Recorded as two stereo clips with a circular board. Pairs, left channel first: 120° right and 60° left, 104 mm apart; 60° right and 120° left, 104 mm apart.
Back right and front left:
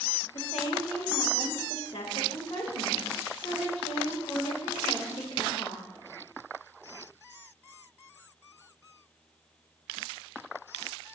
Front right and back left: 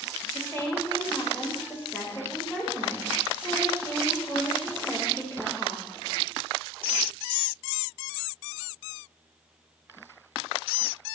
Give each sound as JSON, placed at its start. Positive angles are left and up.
{"t": 0.3, "sound": "a woman speaking", "azimuth_deg": -125, "distance_m": 1.6}